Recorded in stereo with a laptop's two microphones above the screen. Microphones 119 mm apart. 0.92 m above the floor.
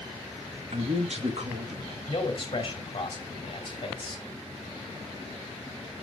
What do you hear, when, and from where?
0.7 s a man speaking: 60° right (ahead or behind), 1.4 m
2.1 s a man speaking: 45° left (ahead or behind), 2.5 m